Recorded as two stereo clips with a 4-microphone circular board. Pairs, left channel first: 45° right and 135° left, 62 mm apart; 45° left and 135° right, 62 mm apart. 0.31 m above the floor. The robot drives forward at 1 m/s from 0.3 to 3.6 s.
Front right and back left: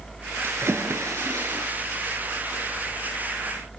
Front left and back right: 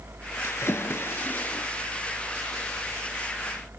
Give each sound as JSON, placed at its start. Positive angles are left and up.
{"t": 0.4, "sound": "a splash", "azimuth_deg": 85, "distance_m": 4.0}